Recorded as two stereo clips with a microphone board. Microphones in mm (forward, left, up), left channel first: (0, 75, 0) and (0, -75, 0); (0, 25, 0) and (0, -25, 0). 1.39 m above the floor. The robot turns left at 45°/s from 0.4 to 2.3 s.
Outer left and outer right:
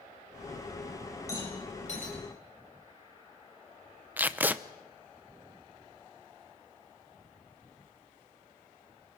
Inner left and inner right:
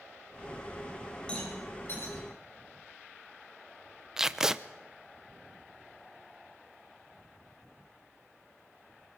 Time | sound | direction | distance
1.3 | a rattle | 20° left (ahead or behind) | 7.5 m
4.2 | tape being pulled | 10° right (ahead or behind) | 0.6 m